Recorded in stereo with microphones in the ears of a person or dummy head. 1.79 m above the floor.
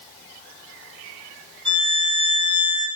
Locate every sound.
1.6 s a violin: 60° right (ahead or behind), 3 m